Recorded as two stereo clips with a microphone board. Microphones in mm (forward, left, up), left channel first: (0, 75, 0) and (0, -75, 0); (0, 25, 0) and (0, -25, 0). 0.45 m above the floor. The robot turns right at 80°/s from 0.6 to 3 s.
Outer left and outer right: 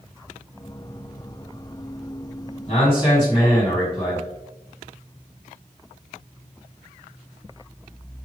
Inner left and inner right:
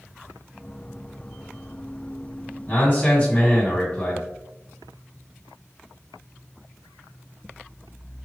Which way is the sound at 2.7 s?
50° left (ahead or behind).